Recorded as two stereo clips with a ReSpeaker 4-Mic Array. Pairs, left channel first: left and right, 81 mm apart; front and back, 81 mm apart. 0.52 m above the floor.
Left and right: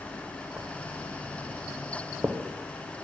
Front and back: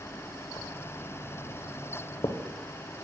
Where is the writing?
25° right, 0.8 m.